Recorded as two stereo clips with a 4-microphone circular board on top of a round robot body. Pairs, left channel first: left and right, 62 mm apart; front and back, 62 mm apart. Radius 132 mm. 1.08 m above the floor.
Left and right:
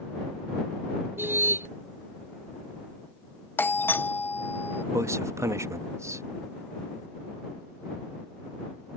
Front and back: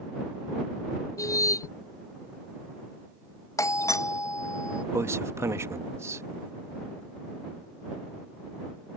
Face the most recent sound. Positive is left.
turn(degrees=-135)